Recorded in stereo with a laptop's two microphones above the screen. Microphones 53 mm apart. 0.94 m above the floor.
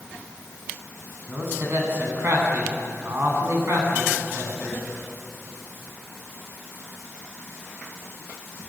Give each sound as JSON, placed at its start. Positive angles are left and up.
{"t": 1.3, "sound": "a man speaking", "side_deg": -45, "distance_m": 9.0}